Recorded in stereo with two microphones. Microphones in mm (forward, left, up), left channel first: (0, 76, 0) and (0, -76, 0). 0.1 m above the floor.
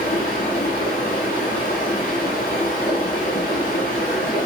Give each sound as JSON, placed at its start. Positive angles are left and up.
{"t": 0.0, "sound": "running water", "side_deg": 70, "distance_m": 1.6}